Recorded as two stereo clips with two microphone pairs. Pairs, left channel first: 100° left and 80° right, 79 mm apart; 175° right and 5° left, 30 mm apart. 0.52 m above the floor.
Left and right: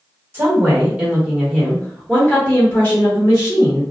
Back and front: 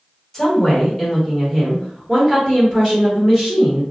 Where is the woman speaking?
105° right, 1.3 m; by 3.8 s 60° left, 1.8 m.